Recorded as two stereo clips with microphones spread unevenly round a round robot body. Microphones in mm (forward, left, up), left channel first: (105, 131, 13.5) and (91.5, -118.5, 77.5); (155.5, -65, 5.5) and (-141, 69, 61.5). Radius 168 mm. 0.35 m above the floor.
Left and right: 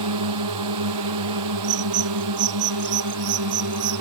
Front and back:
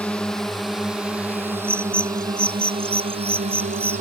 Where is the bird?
120° right.